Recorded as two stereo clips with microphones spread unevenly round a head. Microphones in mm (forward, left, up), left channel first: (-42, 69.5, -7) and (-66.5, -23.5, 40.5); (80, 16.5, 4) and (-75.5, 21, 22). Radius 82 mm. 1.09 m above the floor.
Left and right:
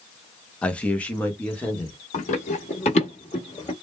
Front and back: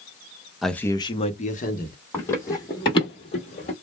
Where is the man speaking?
80° left, 0.6 m; by 2.0 s 15° left, 1.0 m.